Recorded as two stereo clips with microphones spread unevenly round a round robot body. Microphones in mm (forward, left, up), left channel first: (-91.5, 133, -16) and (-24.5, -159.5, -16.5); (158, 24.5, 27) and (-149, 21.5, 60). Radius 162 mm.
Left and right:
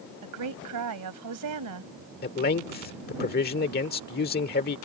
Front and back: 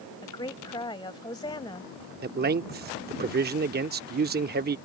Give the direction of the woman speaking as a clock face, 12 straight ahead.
2 o'clock.